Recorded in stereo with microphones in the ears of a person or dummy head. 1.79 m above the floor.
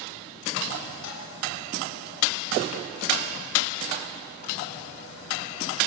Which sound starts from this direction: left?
Dishes clattering, at 1.0 s.